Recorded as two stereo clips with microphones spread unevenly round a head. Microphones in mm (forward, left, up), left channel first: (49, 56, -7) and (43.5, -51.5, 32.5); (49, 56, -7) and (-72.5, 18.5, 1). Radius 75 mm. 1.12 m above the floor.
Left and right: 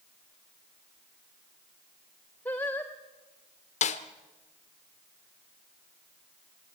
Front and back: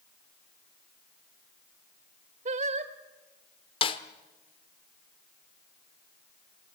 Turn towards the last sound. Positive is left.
turn(degrees=65)